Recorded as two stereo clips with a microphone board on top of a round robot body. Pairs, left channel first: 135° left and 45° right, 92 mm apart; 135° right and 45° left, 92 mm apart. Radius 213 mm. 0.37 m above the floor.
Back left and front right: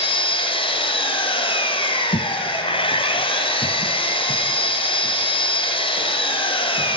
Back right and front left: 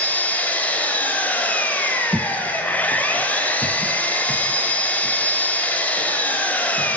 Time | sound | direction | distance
0.0 | an engine running | 150° left | 2.5 m
2.1 | footsteps | 125° left | 0.5 m